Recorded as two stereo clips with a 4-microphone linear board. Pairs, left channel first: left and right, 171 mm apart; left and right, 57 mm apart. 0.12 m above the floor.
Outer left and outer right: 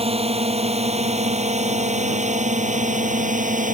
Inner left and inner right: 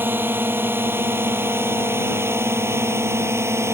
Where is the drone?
35° right (ahead or behind); by 3.7 s 50° right (ahead or behind).